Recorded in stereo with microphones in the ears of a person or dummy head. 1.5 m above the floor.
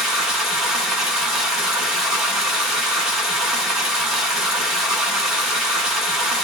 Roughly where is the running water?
Centre.